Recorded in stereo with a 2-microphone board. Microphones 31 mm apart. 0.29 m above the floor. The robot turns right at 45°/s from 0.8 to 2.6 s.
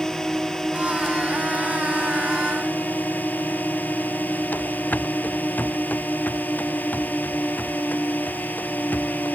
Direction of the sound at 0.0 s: 20° left (ahead or behind).